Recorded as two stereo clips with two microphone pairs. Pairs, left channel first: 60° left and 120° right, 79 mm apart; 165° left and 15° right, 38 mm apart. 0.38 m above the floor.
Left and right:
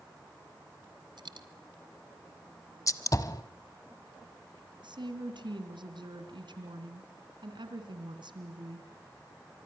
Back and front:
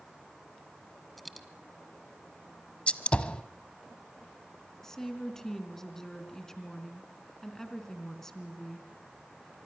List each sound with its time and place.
1.2 s a dropped coin: 110° right, 1.5 m
2.9 s a gunshot: 105° left, 1.0 m
4.8 s a woman speaking: 120° right, 3.5 m